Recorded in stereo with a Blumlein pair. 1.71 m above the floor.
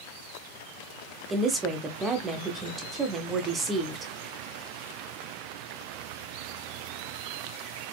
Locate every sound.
1.3 s a woman speaking: 20° right, 0.9 m